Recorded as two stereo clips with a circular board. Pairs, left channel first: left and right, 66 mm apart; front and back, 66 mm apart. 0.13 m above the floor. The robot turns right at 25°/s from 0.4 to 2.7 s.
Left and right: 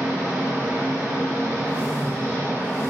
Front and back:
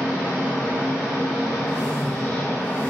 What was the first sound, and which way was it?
An engine running, 115° right.